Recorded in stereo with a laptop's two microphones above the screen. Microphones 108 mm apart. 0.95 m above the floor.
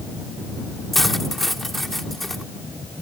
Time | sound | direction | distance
0.9 | cutlery clinking | centre (ahead or behind) | ?